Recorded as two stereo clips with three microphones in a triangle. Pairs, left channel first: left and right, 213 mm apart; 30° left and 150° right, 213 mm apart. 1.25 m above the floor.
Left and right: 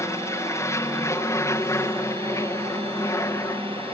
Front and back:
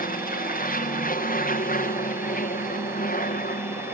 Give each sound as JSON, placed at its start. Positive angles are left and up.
{"t": 0.0, "sound": "an aircraft", "azimuth_deg": 20}